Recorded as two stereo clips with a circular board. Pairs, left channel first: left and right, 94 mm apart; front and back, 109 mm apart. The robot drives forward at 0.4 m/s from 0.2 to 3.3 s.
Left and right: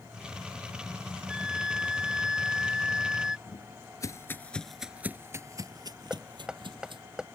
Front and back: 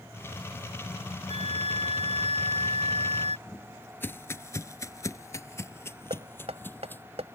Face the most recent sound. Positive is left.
turn(degrees=-175)